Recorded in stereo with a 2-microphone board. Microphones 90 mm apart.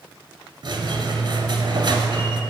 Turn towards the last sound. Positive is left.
turn(degrees=-55)  # may be behind; listen again after turning